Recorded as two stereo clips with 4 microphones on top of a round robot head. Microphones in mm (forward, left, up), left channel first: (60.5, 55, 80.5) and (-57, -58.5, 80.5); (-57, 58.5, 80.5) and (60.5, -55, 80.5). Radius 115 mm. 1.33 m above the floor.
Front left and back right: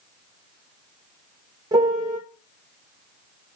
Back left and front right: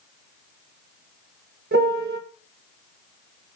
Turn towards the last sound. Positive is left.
turn(degrees=-70)